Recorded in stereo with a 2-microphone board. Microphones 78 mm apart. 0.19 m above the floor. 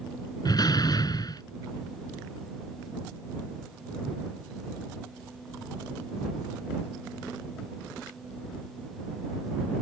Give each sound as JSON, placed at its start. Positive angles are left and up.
{"t": 0.5, "sound": "a door slam", "side_deg": 55}